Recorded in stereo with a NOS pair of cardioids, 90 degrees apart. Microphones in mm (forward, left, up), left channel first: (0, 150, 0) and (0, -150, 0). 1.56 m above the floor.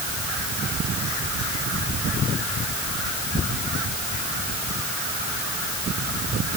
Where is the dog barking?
I don't hear a dog barking.